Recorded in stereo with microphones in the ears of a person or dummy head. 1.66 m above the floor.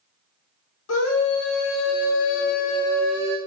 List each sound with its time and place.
0.9 s a scream: 85° left, 2 m; by 3.4 s 20° right (ahead or behind), 0.9 m